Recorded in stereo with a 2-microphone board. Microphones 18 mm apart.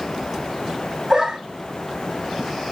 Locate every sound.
1.1 s a dog barking: 30° right (ahead or behind), 1.3 m